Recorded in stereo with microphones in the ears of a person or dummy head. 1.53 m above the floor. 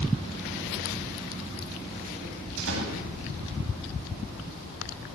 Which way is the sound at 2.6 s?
80° right.